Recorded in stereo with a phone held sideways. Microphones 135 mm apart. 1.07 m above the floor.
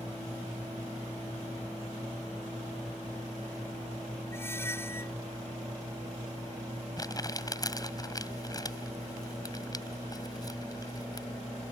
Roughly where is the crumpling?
Left.